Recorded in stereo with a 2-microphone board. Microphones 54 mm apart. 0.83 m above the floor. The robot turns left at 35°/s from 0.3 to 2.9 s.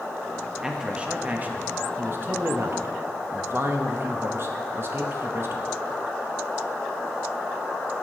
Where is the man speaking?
15° right, 0.9 m; by 5.7 s 95° right, 0.9 m.